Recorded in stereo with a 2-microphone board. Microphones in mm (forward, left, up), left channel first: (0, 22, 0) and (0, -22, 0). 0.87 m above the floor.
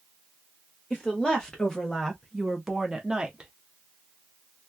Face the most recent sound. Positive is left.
turn(degrees=-20)  # may be behind; listen again after turning